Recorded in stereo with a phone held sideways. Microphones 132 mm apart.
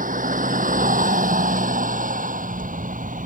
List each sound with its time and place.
0.0 s a vehicle: 85° right